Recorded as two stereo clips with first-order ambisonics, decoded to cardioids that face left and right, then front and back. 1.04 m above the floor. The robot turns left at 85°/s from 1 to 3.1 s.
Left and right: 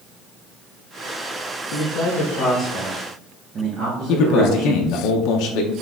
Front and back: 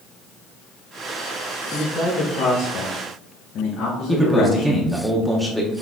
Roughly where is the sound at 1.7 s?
Left.